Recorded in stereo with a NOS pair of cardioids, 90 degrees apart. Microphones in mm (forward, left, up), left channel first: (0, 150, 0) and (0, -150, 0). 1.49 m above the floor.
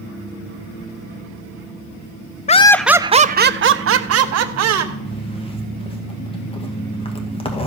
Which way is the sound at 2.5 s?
25° left.